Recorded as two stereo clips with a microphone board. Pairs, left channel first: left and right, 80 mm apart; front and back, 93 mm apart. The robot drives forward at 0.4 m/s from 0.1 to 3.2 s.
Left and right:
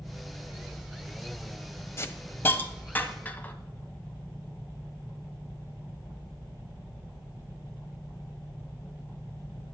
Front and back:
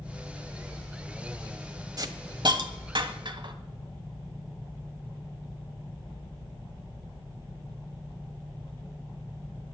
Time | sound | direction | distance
2.0 | a hiss | 140° left | 0.8 m